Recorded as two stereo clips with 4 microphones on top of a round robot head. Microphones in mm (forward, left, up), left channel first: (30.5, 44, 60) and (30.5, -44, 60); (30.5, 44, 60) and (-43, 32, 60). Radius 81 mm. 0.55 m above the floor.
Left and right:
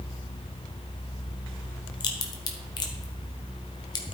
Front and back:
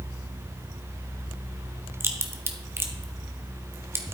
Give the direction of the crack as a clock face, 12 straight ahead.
8 o'clock.